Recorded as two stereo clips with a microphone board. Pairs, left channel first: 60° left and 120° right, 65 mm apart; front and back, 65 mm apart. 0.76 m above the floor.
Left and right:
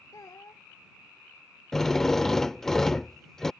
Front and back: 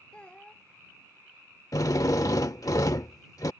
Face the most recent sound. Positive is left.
turn(degrees=-25)